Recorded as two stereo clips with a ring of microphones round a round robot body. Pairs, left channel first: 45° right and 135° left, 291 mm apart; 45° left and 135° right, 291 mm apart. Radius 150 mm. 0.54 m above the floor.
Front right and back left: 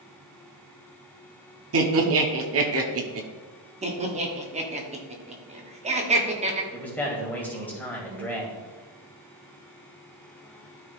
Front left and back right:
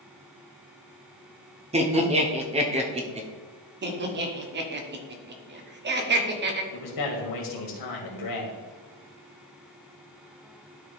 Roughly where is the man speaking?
Ahead left.